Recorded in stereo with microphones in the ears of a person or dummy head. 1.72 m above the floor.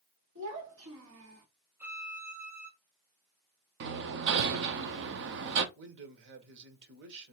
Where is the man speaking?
65° right (ahead or behind), 1.1 m.